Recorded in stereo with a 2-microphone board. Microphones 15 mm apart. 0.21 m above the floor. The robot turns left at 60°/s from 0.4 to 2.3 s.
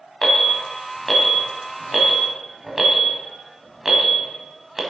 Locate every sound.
0.2 s an alarm: 30° left (ahead or behind), 1.4 m; by 4.8 s 25° right (ahead or behind), 1.4 m